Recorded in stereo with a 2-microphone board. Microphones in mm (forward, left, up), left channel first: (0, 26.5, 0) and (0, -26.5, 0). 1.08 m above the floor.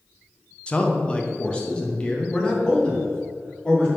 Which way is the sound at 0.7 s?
20° left (ahead or behind).